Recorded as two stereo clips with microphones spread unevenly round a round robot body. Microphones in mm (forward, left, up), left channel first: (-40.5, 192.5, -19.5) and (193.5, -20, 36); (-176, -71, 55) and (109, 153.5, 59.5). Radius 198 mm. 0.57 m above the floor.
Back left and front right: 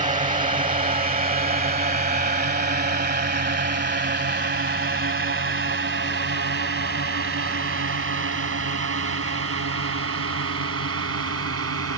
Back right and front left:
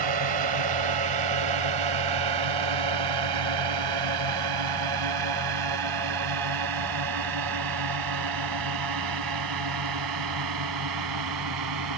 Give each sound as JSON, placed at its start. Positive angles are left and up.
{"t": 0.0, "sound": "a drone", "azimuth_deg": 25}